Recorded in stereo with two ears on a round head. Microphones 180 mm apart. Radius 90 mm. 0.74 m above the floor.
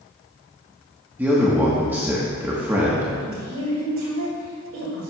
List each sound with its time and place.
1.2 s a man speaking: 10° right (ahead or behind), 1.2 m
3.2 s a woman speaking: 75° right (ahead or behind), 2 m